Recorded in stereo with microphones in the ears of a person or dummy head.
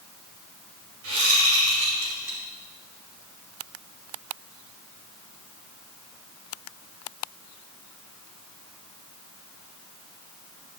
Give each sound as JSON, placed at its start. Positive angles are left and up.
{"t": 1.0, "sound": "a whoosh", "side_deg": -85, "distance_m": 2.5}